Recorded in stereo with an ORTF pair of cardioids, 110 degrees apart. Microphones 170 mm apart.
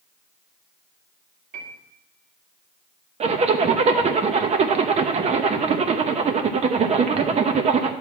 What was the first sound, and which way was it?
A piano, 65° right.